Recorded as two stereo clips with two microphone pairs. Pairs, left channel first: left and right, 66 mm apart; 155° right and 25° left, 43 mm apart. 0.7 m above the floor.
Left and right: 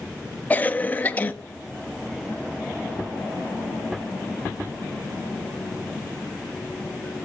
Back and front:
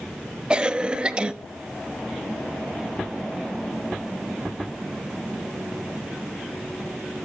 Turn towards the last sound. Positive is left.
turn(degrees=70)